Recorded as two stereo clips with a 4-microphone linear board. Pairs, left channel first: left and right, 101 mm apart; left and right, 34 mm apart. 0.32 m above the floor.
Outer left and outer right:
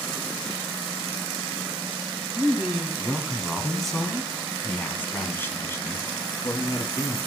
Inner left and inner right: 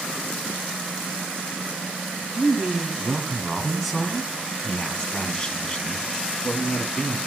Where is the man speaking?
10° right (ahead or behind), 3 m; by 7.2 s 45° left (ahead or behind), 2.5 m.